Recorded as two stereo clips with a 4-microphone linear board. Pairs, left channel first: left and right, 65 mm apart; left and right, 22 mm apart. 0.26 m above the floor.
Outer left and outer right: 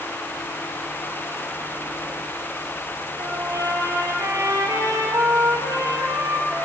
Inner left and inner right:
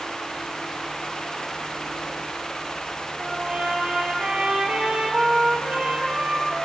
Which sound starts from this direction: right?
A trumpet, at 3.2 s.